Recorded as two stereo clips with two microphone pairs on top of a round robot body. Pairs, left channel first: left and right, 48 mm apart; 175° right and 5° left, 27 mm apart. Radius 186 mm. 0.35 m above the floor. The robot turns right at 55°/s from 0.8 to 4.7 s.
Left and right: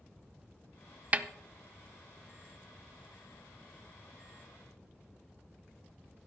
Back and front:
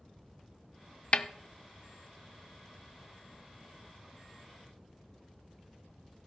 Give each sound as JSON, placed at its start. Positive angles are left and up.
{"t": 1.1, "sound": "a snare drum", "azimuth_deg": -145, "distance_m": 0.7}